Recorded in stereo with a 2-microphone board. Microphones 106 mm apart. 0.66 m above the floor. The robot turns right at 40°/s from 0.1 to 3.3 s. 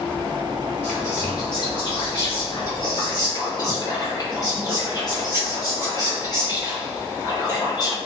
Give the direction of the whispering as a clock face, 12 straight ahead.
11 o'clock.